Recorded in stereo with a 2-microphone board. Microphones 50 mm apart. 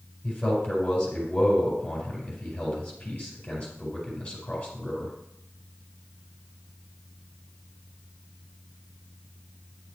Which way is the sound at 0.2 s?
20° left (ahead or behind).